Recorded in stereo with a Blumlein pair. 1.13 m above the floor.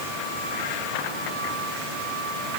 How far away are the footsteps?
I don't hear footsteps.